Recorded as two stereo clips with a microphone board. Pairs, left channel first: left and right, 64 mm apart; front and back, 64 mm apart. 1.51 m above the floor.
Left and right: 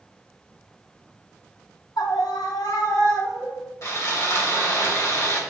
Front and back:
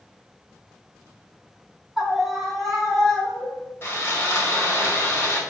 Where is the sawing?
55° left, 1.8 m.